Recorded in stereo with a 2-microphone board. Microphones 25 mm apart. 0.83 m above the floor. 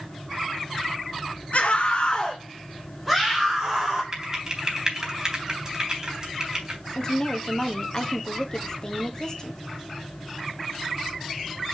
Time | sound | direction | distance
1.5 | a scream | 65° left (ahead or behind) | 1.0 m
4.1 | typing on a keyboard | 25° right (ahead or behind) | 3.5 m
7.0 | a woman speaking | 30° left (ahead or behind) | 1.4 m